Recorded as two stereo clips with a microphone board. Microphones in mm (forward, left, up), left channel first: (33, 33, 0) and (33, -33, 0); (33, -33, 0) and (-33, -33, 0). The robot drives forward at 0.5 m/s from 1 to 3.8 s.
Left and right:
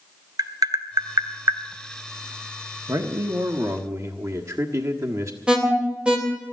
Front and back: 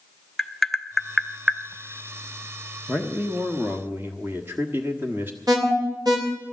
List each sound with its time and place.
0.4 s tapping: 85° right, 0.9 m; by 1.6 s 105° right, 0.9 m
2.9 s a man speaking: 100° right, 1.3 m; by 5.4 s 120° right, 1.4 m
5.5 s an alarm: 165° right, 3 m